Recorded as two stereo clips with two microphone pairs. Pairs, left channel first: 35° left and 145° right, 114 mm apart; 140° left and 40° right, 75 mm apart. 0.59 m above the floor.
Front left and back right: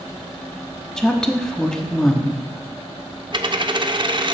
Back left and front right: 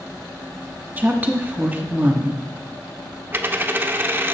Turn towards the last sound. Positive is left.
turn(degrees=-105)